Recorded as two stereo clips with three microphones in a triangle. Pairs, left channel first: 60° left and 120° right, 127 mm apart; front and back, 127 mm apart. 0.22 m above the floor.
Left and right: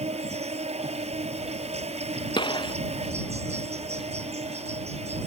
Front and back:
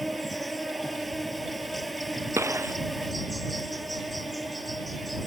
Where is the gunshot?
110° left.